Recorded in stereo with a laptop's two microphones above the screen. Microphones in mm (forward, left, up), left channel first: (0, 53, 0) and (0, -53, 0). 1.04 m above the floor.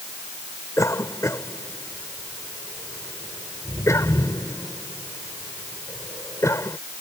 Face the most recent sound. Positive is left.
turn(degrees=30)  # may be behind; listen again after turning